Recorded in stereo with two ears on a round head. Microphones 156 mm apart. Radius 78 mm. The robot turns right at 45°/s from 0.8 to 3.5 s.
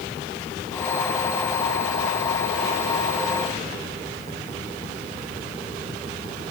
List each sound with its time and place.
Only background noise.